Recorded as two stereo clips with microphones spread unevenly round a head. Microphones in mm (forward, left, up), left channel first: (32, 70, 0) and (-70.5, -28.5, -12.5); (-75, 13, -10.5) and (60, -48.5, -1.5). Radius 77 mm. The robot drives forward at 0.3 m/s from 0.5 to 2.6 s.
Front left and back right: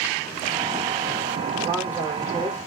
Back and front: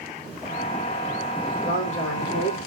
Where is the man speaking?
150° left, 4.5 m.